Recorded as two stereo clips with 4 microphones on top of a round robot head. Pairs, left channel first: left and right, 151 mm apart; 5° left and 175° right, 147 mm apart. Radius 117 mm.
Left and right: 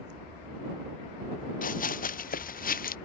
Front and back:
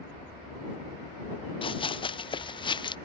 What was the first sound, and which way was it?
Running footsteps, 60° left.